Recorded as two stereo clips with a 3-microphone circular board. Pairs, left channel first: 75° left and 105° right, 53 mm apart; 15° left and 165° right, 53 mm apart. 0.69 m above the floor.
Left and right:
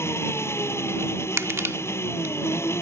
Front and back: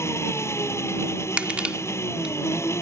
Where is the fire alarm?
I don't hear a fire alarm.